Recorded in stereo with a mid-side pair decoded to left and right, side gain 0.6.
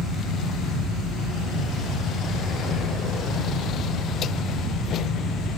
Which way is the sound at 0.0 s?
50° left.